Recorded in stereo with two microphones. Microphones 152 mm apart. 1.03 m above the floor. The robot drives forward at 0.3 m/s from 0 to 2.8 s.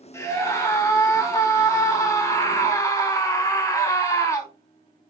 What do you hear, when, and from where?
0.1 s a scream: 15° left (ahead or behind), 4.5 m; by 4.5 s 20° left (ahead or behind), 4 m